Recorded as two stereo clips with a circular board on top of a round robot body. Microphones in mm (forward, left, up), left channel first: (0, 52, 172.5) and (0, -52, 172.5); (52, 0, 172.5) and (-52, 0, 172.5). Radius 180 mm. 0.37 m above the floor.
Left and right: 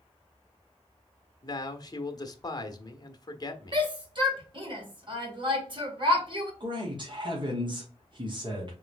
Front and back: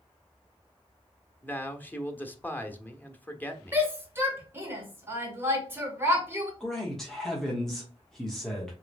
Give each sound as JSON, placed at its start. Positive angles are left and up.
{"t": 1.4, "sound": "a man speaking", "azimuth_deg": 65, "distance_m": 1.1}
{"t": 3.7, "sound": "a shout", "azimuth_deg": -115, "distance_m": 2.5}
{"t": 6.6, "sound": "a man speaking", "azimuth_deg": -85, "distance_m": 1.5}